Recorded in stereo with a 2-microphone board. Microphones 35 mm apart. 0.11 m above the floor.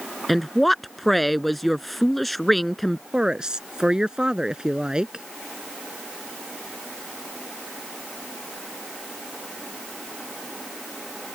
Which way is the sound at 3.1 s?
20° right (ahead or behind).